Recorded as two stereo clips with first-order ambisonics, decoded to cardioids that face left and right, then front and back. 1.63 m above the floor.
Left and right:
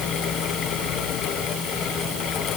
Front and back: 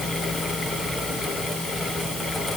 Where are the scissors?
I don't hear scissors.